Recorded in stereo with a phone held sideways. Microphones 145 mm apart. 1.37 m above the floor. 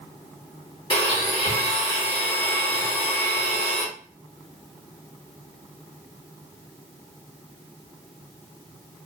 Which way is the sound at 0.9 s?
35° left (ahead or behind).